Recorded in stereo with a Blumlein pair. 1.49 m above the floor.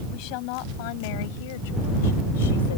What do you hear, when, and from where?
0.1 s a woman speaking: 40° left; by 2.8 s 60° left